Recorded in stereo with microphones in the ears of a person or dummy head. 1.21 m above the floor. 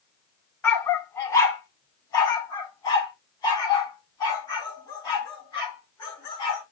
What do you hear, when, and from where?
0.6 s a dog barking: 5° left (ahead or behind), 0.9 m; by 6.6 s 20° left (ahead or behind), 7.5 m